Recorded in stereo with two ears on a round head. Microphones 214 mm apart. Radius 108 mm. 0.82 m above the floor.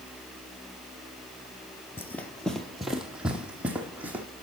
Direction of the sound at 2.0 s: 10° left (ahead or behind).